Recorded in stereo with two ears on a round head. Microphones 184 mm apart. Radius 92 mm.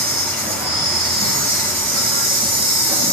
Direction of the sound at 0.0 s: 30° right (ahead or behind).